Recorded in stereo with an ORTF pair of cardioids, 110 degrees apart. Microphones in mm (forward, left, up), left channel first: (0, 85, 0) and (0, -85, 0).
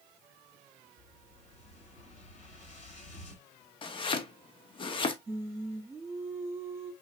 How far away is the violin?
No violin in this recording.